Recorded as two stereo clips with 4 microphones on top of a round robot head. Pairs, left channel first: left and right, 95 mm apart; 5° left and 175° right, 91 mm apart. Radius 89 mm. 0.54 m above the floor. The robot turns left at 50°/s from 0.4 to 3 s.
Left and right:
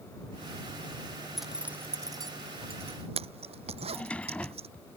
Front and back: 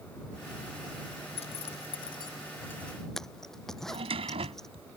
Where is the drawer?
170° left.